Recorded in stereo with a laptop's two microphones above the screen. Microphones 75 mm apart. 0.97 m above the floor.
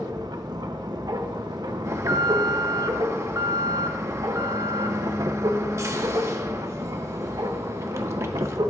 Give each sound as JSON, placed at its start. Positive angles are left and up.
{"t": 0.0, "sound": "a machine running", "side_deg": -65, "distance_m": 0.8}
{"t": 1.9, "sound": "an alarm", "side_deg": -40, "distance_m": 1.3}